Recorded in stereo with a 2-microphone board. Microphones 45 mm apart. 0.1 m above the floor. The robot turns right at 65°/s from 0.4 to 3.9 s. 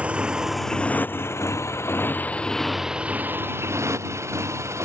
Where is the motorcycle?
25° right (ahead or behind); by 4.8 s 85° right.